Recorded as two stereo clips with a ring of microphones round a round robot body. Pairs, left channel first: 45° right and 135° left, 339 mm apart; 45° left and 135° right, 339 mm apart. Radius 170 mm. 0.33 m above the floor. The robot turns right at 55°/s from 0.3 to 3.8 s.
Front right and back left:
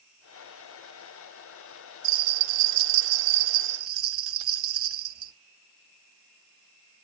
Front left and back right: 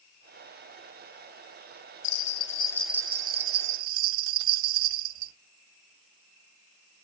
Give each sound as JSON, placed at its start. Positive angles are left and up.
{"t": 2.0, "sound": "a bell", "azimuth_deg": 90, "distance_m": 0.6}